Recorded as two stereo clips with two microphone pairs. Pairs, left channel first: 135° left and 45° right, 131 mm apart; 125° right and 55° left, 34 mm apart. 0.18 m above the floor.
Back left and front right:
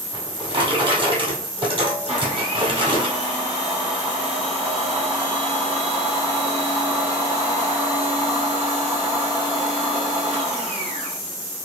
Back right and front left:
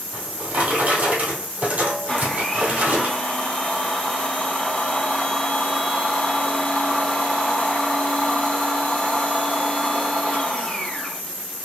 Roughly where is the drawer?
Ahead.